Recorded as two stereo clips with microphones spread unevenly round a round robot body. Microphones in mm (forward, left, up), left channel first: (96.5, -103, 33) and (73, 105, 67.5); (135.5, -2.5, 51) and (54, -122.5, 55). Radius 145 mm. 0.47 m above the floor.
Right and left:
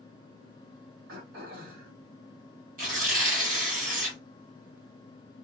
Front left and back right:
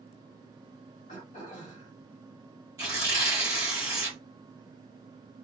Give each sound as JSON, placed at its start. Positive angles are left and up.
{"t": 1.1, "sound": "throat clearing", "azimuth_deg": 95, "distance_m": 2.5}
{"t": 2.8, "sound": "tearing paper", "azimuth_deg": 160, "distance_m": 0.9}